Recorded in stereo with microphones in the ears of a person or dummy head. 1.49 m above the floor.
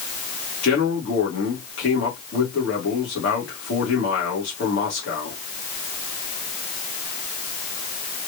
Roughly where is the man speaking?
Left.